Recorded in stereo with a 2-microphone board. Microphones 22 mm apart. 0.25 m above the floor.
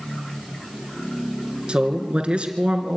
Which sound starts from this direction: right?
A man speaking, at 1.7 s.